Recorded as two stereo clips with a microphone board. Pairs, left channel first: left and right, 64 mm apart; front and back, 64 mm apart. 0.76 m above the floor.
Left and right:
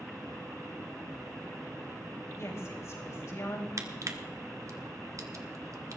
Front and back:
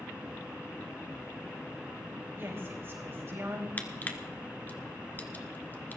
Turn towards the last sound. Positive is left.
turn(degrees=-60)